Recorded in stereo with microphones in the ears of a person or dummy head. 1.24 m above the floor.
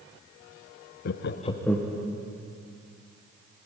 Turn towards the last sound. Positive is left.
turn(degrees=-5)  # may be behind; listen again after turning